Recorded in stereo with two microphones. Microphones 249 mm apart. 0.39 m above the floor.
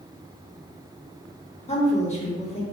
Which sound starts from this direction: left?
A woman speaking, at 1.7 s.